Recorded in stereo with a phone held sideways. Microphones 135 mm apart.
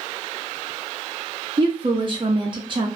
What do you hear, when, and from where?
1.6 s a woman speaking: 35° right (ahead or behind), 0.5 m